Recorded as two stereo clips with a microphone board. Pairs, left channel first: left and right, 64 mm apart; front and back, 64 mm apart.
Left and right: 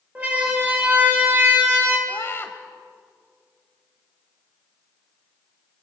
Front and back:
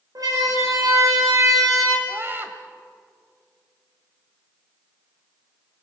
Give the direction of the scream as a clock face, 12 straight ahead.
8 o'clock.